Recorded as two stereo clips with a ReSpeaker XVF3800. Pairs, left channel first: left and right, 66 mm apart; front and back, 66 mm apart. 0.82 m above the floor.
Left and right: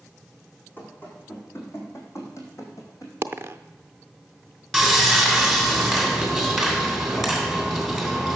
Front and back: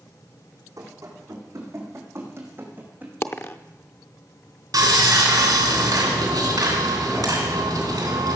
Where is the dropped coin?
45° right, 0.6 m.